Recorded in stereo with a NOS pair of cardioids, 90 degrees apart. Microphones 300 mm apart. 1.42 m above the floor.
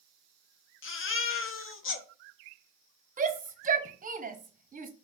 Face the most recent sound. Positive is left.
turn(degrees=-30)